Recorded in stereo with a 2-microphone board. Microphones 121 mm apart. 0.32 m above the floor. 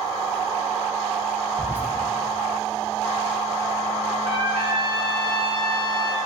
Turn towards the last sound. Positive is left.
turn(degrees=-50)  # may be behind; listen again after turning